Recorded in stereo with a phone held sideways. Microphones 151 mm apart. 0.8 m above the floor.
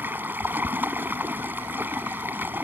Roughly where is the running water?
Centre.